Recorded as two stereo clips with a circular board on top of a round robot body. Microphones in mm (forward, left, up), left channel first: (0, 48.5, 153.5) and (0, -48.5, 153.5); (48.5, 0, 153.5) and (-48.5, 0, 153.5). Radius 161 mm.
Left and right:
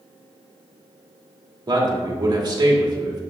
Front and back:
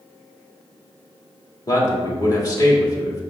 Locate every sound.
1.7 s a man speaking: 50° right, 1.9 m